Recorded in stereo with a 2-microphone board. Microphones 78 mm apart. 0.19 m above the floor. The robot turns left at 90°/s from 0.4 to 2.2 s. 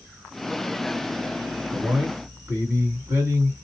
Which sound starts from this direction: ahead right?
A man speaking, at 1.7 s.